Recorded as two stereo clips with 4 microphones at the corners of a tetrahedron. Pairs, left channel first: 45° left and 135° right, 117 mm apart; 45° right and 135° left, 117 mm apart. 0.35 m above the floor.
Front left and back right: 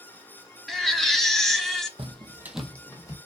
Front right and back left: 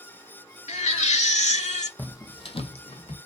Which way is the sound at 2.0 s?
120° right.